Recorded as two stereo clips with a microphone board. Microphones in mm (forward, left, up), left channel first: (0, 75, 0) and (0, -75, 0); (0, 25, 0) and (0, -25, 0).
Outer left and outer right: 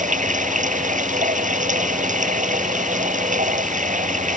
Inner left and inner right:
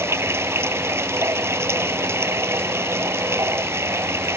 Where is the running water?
55° right (ahead or behind).